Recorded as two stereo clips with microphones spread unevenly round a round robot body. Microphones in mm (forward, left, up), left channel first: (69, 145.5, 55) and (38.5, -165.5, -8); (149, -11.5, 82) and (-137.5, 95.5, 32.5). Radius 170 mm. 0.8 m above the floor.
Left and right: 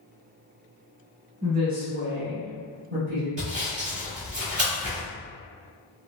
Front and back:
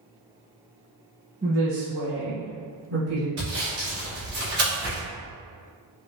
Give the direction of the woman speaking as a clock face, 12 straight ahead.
5 o'clock.